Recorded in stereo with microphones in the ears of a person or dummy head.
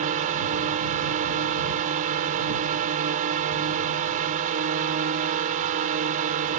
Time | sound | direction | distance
0.0 | a drone | 45° right (ahead or behind) | ?